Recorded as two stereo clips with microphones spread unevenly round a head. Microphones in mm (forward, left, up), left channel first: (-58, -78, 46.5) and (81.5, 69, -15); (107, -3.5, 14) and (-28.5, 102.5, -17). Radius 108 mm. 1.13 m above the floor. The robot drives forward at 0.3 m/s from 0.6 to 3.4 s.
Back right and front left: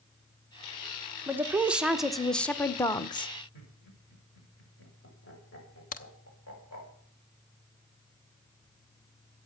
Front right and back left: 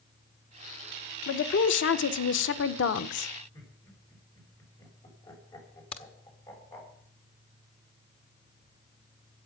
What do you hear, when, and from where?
1.3 s a woman speaking: 25° right, 1.0 m; by 3.3 s 60° right, 0.6 m
3.5 s laughter: 105° right, 6.5 m
5.9 s a crack: 95° right, 0.9 m